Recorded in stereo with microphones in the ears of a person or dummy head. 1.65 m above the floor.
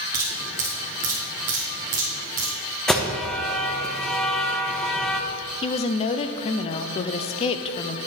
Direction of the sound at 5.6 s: 30° left (ahead or behind).